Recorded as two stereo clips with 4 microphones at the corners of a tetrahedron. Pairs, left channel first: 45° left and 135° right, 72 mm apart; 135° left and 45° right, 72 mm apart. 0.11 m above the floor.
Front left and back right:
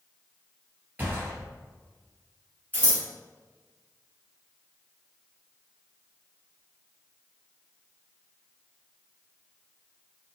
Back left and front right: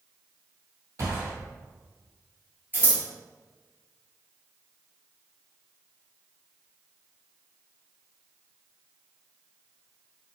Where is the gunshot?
75° right, 1.9 m.